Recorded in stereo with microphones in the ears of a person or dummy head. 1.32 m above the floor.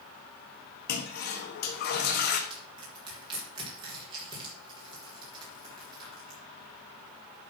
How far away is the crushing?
About 4.5 m.